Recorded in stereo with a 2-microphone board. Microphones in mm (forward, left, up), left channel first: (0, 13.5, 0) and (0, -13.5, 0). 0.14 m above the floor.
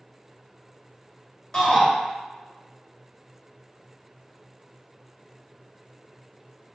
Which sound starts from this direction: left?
A shout, at 1.5 s.